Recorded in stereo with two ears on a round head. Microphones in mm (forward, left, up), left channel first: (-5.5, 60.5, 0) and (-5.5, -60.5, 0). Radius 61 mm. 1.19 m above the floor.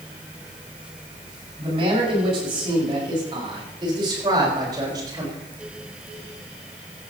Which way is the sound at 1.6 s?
40° right (ahead or behind).